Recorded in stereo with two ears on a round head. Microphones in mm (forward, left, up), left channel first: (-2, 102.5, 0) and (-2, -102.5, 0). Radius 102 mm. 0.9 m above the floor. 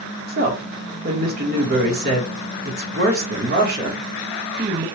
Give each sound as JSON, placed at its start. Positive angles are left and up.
{"t": 0.3, "sound": "a woman speaking", "side_deg": -45, "distance_m": 1.3}